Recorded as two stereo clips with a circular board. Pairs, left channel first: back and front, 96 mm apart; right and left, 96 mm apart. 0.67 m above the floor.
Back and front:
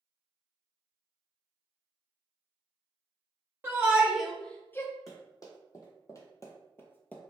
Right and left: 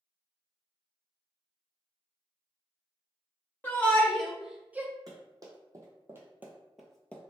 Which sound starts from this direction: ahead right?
A shout, at 3.6 s.